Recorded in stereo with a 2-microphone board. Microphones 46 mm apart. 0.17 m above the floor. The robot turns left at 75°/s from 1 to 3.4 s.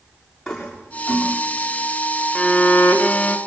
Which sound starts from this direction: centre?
A toilet flushing, at 0.5 s.